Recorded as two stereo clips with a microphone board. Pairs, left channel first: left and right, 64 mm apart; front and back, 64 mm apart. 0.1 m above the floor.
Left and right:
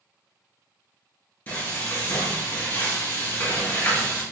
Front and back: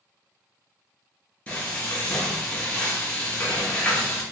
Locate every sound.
1.5 s frying: 50° left, 1.5 m